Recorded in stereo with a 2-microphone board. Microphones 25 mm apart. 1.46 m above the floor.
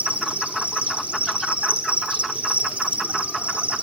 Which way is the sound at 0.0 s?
70° right (ahead or behind).